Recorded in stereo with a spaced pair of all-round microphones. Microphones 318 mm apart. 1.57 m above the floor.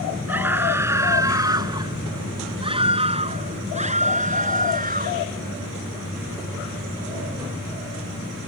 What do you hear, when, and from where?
0.3 s a scream: 5° right (ahead or behind); by 5.3 s 25° right (ahead or behind)